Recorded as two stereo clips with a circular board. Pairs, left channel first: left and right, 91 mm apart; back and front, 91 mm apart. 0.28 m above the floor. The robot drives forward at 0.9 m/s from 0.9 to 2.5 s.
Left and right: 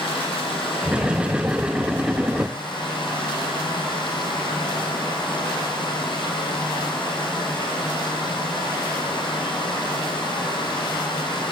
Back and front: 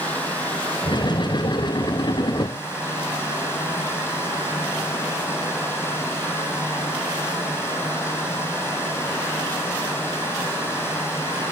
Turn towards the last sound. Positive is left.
turn(degrees=115)